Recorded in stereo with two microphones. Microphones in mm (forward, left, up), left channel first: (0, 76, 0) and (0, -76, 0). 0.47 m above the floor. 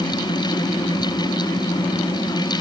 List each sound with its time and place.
Only background noise.